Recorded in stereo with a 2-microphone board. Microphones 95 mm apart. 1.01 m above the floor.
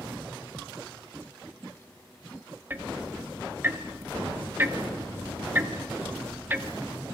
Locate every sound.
2.7 s ticking: 20° right (ahead or behind), 1.3 m